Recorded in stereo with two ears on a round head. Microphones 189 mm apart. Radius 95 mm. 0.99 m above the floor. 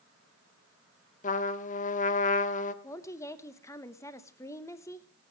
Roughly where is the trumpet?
Left.